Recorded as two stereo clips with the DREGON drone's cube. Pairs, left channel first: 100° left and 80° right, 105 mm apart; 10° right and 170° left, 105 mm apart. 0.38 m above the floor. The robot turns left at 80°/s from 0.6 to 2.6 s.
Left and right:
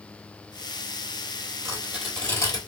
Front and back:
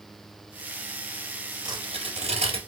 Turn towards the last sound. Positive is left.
turn(degrees=145)